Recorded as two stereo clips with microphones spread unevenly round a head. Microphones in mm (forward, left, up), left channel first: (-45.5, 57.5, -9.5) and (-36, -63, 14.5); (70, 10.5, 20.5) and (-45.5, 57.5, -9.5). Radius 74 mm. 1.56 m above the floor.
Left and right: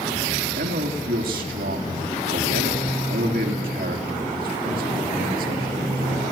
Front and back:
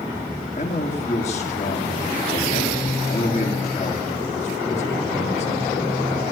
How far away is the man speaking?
About 3.5 m.